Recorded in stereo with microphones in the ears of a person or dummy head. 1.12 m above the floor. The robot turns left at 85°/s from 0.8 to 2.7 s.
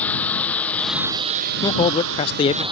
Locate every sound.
0.0 s a lawn mower: centre (ahead or behind); by 2.7 s 15° right (ahead or behind)
1.6 s a man speaking: 20° left (ahead or behind)